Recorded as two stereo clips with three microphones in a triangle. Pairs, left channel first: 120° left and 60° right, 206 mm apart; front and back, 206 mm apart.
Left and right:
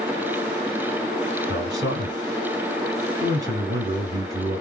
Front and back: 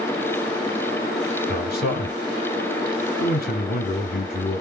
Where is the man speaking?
5° left, 2.5 m.